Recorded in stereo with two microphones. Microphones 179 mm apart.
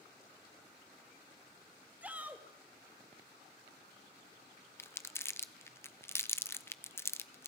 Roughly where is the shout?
Centre.